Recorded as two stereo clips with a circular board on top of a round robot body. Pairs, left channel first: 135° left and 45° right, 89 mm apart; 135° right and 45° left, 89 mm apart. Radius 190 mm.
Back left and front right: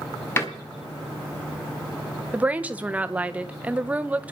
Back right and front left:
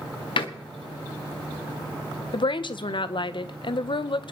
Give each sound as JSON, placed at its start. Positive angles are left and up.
{"t": 0.4, "sound": "a door slam", "azimuth_deg": -160, "distance_m": 1.4}
{"t": 2.3, "sound": "a woman speaking", "azimuth_deg": -120, "distance_m": 1.0}